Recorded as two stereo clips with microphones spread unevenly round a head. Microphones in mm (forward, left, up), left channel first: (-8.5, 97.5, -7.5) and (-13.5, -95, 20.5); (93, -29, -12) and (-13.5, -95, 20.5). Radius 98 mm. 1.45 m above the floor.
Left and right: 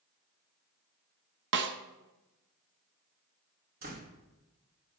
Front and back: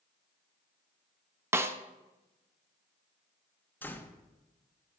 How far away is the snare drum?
About 1.1 m.